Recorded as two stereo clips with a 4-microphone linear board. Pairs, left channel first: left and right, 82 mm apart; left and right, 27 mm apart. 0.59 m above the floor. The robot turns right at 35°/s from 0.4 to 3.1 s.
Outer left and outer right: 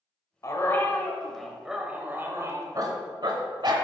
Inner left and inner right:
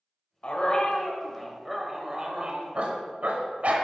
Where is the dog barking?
140° left, 1.1 m; by 3.9 s 125° right, 1.1 m.